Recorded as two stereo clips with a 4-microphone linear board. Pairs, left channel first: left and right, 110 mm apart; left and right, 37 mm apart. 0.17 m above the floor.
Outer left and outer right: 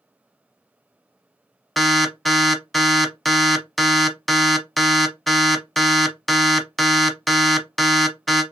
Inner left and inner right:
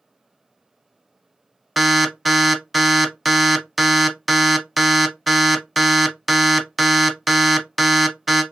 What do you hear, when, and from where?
1.8 s an alarm: centre (ahead or behind), 0.7 m